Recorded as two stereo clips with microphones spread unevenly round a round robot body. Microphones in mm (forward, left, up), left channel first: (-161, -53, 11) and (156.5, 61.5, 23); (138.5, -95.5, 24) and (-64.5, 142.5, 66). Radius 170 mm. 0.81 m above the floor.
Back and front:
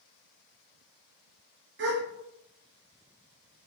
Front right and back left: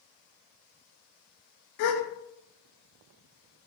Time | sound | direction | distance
1.8 | a gasp | 40° right | 0.7 m